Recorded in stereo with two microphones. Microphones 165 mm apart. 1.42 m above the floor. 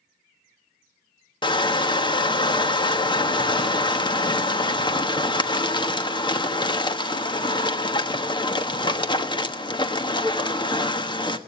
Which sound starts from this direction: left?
Crushing, at 1.4 s.